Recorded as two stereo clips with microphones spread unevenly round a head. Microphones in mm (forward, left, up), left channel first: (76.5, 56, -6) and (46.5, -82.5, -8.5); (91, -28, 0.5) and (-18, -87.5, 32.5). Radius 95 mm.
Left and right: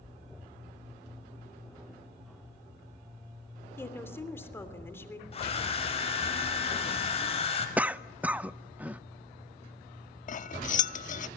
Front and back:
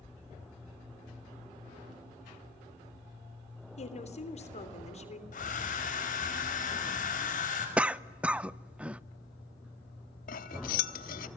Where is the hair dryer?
35° left, 5.5 m.